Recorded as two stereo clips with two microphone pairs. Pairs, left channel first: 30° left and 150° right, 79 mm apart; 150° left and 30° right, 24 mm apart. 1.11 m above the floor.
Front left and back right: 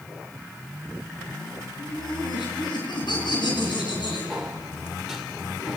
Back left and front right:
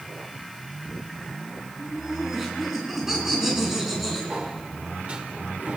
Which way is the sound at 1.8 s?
35° left.